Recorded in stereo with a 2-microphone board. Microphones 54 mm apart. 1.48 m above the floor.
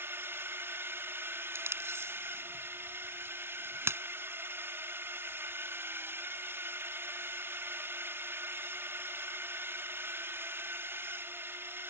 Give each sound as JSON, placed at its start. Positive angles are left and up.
{"t": 0.0, "sound": "a drone", "side_deg": -45}
{"t": 1.6, "sound": "tape being pulled", "side_deg": -50}